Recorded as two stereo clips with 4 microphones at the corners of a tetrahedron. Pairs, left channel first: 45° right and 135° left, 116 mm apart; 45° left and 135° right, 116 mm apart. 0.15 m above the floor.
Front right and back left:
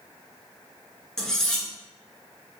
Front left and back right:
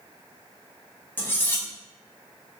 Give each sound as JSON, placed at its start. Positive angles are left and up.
{"t": 1.2, "sound": "cutlery clinking", "azimuth_deg": 30, "distance_m": 0.6}